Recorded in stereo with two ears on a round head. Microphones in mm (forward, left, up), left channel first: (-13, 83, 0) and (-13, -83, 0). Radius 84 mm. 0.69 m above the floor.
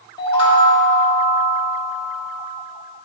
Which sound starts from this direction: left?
A chime, at 0.2 s.